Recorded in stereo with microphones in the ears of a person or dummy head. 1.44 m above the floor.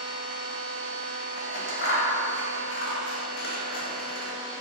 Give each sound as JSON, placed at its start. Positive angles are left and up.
{"t": 0.0, "sound": "a machine running", "side_deg": -75, "distance_m": 0.9}
{"t": 1.4, "sound": "scissors", "side_deg": 60, "distance_m": 0.6}